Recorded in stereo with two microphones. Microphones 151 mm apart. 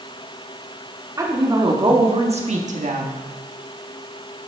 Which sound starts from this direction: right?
A woman speaking, at 1.2 s.